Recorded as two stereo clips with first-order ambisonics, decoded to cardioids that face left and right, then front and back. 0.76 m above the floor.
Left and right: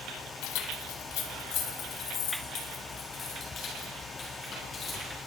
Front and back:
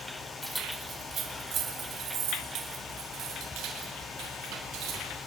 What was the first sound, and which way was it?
Keys jangling, 85° left.